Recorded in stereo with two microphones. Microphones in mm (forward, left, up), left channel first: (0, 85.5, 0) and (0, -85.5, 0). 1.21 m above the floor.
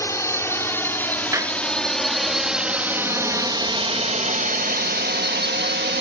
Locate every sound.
0.0 s a drone: 20° left (ahead or behind); by 6.0 s 80° right
1.3 s a clap: 15° right (ahead or behind)